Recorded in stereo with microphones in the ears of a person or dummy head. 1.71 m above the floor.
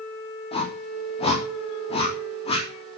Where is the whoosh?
30° left (ahead or behind), 4 m.